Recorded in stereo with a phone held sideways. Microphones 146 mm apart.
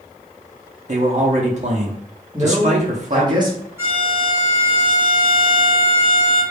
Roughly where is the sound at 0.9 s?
Right.